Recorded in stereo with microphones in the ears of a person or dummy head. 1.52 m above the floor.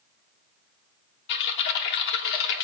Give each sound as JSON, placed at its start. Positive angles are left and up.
{"t": 1.3, "sound": "typing on a keyboard", "side_deg": 60, "distance_m": 2.5}